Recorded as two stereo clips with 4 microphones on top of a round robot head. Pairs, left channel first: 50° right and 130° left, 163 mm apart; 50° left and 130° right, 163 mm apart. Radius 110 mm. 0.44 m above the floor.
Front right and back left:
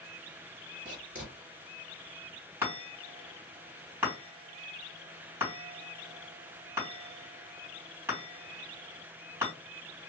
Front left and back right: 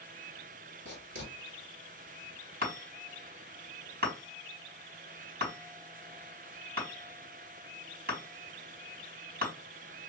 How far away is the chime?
About 3 m.